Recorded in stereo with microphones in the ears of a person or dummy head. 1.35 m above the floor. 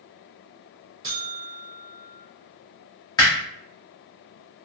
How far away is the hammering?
About 1.1 m.